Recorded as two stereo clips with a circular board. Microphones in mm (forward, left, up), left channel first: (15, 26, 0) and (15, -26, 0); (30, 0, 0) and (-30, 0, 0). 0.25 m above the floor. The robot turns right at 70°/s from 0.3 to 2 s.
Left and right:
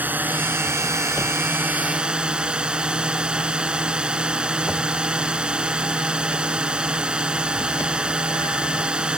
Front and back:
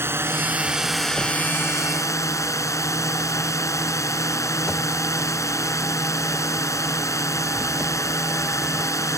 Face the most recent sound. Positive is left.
turn(degrees=-20)